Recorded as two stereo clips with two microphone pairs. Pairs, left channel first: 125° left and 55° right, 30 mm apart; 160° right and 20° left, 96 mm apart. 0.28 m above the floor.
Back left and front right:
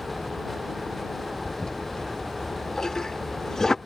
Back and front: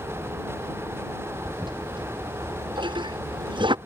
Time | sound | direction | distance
1.4 | a toilet flushing | 55° left | ?